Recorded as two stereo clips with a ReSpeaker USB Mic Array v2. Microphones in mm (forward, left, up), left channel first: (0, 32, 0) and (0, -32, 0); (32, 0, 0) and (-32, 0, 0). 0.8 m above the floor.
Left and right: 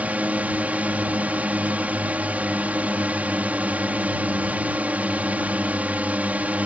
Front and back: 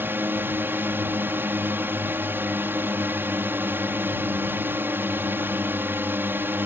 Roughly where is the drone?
Behind right.